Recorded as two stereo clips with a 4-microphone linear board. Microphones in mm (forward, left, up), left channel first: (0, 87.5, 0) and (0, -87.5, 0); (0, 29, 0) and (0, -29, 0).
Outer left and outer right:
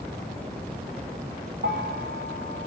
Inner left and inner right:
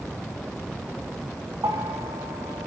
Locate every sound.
1.6 s a bell: 75° right (ahead or behind), 1.1 m